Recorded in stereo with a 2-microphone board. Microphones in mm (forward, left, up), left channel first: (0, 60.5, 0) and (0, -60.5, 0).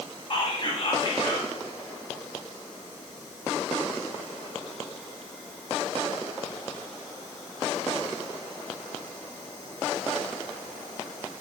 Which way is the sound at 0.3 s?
40° left (ahead or behind).